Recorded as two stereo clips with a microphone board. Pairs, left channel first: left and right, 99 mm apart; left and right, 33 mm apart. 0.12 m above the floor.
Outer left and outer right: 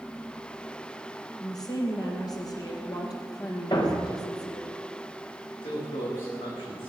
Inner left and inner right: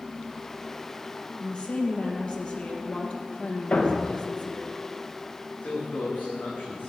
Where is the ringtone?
No ringtone in this recording.